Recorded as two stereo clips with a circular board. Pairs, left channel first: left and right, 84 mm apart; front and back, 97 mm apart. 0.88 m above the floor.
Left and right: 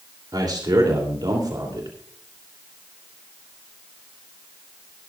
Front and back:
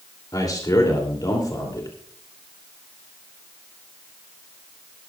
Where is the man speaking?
50° right, 2.5 m.